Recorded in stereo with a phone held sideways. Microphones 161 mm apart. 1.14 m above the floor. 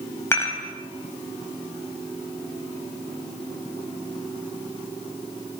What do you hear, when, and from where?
0.3 s dishes clattering: 15° left (ahead or behind), 5 m